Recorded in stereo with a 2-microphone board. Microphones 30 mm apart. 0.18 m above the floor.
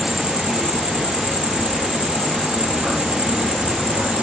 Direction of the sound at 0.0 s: 35° right (ahead or behind).